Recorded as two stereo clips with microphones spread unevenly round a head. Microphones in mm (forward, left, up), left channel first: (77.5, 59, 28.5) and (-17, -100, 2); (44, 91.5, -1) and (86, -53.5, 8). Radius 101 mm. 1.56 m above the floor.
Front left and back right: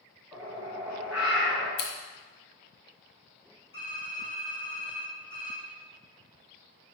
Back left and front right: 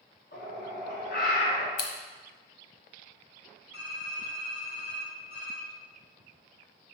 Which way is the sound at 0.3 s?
155° left.